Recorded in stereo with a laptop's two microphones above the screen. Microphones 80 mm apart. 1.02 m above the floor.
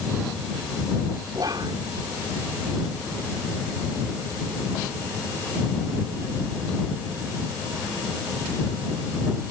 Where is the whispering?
60° right (ahead or behind).